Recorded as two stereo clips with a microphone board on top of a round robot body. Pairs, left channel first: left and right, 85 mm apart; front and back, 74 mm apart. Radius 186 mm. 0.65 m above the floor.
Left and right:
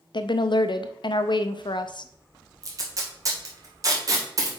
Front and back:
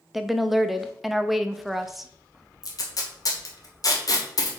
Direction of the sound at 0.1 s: 90° left.